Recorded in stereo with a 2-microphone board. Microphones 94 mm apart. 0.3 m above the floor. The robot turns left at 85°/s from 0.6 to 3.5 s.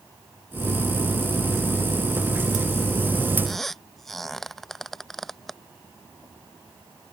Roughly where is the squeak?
Centre.